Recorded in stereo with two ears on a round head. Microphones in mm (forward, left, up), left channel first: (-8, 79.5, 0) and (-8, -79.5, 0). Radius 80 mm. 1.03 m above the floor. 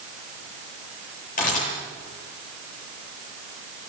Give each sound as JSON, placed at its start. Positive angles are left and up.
{"t": 1.4, "sound": "a camera shutter", "side_deg": 45, "distance_m": 9.0}